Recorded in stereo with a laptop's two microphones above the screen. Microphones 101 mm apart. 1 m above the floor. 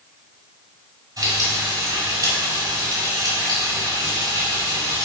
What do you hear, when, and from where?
1.2 s frying: 35° right (ahead or behind), 6.5 m